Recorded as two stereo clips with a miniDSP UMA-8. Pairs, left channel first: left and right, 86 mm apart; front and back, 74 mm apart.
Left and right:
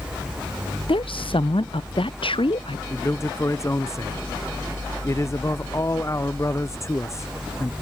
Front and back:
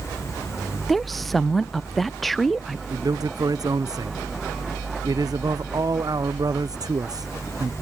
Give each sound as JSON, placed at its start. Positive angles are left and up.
{"t": 0.9, "sound": "a woman speaking", "azimuth_deg": 90}
{"t": 2.9, "sound": "a man speaking", "azimuth_deg": 145}